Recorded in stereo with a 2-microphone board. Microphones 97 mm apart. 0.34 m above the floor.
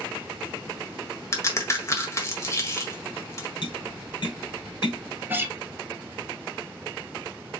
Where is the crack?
30° left (ahead or behind), 1.5 m.